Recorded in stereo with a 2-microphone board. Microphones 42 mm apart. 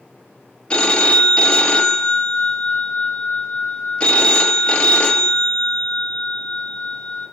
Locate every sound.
0.7 s a phone ringing: 25° left (ahead or behind), 0.7 m